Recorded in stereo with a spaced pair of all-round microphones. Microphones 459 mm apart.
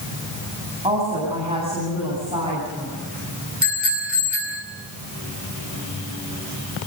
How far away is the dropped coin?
I don't hear a dropped coin.